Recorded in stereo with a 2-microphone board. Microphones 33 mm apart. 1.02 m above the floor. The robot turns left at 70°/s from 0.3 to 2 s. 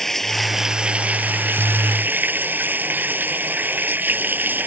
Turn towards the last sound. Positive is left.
turn(degrees=-110)